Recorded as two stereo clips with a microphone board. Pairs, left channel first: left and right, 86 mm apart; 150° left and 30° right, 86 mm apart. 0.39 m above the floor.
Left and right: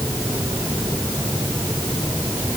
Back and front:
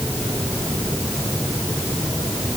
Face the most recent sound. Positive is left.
No sound to turn to.